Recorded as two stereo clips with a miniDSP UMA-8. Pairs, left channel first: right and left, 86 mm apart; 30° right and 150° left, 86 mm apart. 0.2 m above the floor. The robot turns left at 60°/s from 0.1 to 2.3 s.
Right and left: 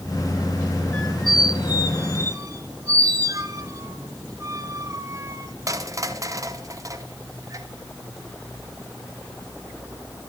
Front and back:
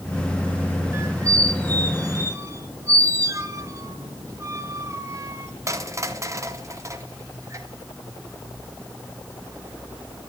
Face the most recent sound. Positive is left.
turn(degrees=115)